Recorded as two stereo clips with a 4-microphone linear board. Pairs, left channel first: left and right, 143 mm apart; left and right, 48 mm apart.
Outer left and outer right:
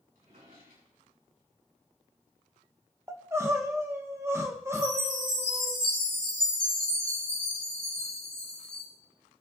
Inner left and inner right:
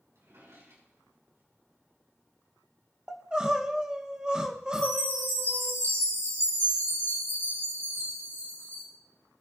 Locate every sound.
0.1 s a drawer: 85° right, 6 m
3.1 s crying: 20° right (ahead or behind), 1.1 m
4.7 s a chime: 80° right, 6.5 m